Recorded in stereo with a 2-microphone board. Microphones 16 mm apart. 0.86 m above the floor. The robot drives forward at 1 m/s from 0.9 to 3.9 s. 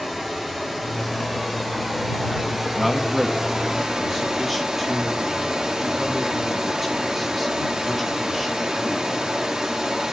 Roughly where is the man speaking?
Centre.